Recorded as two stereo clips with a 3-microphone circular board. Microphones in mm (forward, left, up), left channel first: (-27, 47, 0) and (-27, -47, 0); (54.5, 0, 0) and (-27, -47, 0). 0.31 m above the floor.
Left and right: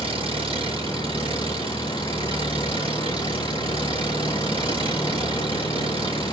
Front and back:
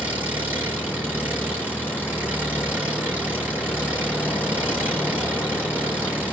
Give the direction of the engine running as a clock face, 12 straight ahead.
3 o'clock.